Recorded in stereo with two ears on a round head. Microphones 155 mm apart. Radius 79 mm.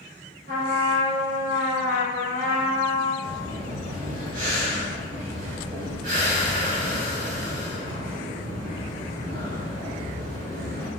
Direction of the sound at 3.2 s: 55° right (ahead or behind).